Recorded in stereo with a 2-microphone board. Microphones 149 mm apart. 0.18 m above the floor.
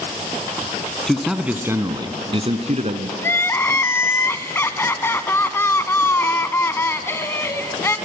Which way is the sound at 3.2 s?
15° left (ahead or behind).